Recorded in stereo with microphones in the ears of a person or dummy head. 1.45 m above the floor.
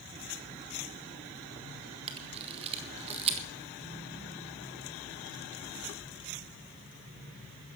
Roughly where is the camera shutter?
Right.